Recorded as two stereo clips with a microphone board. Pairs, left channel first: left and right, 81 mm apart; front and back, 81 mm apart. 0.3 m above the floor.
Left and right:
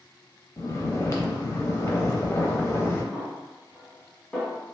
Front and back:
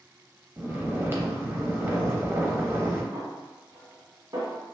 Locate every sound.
0.6 s snoring: 130° left, 0.6 m
3.1 s a snare drum: 170° left, 1.5 m